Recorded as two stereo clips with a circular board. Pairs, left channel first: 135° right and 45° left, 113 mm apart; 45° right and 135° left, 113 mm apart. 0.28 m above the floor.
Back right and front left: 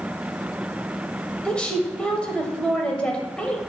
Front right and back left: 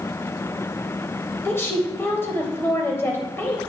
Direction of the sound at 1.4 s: 70° right.